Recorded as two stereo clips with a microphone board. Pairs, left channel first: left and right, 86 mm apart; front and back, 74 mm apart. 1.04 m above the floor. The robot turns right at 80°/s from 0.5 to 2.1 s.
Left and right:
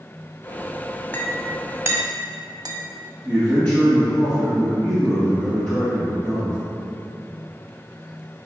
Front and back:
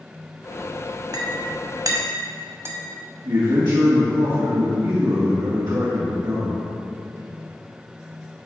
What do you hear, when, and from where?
1.1 s a clink: 155° left, 1.0 m; by 2.8 s 130° right, 1.0 m
3.2 s a man speaking: 165° left, 1.3 m